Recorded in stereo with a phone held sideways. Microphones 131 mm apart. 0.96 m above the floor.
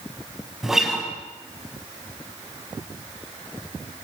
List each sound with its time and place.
0.6 s a guitar: 5° right (ahead or behind), 5 m